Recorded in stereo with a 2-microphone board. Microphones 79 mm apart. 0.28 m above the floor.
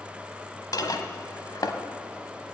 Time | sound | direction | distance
0.7 | dishes clattering | 55° left (ahead or behind) | 1.0 m